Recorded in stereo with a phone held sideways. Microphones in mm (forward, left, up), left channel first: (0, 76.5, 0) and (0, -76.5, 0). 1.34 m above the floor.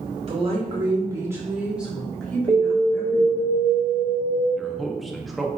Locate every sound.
0.3 s a woman speaking: 40° right (ahead or behind), 1.3 m; by 3.5 s 25° left (ahead or behind), 1.6 m
2.5 s an alarm: 30° right (ahead or behind), 0.8 m
4.6 s a man speaking: centre (ahead or behind), 0.5 m